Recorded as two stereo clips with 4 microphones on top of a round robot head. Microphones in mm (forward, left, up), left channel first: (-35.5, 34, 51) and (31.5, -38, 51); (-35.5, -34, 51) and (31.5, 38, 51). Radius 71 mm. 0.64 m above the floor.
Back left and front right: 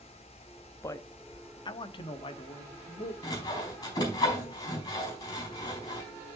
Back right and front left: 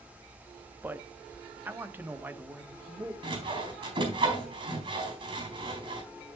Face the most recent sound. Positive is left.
turn(degrees=80)